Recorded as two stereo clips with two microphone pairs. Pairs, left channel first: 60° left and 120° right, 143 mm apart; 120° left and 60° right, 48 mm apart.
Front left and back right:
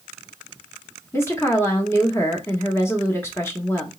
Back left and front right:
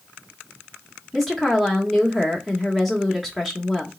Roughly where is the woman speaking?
Ahead left.